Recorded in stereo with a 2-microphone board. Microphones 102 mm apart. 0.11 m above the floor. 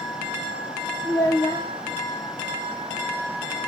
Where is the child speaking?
45° left (ahead or behind), 2 m.